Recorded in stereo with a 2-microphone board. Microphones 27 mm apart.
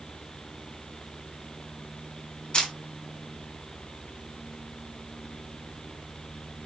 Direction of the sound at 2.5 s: 35° left (ahead or behind).